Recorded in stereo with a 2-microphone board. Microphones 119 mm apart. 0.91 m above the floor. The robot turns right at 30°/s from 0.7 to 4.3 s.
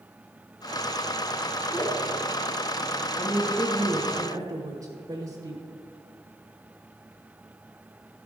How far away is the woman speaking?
About 1.1 m.